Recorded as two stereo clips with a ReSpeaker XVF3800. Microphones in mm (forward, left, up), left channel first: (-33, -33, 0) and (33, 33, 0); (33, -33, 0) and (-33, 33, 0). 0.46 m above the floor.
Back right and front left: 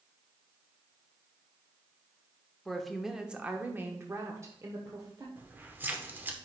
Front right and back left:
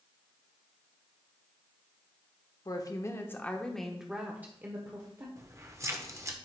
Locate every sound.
2.6 s a woman speaking: 50° right, 0.9 m; by 5.3 s 90° left, 1.2 m
5.4 s keys jangling: 100° left, 0.8 m